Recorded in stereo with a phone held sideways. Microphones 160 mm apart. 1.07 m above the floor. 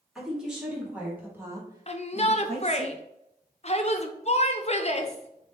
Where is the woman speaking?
5° right (ahead or behind), 2 m; by 2.9 s 50° right (ahead or behind), 0.9 m.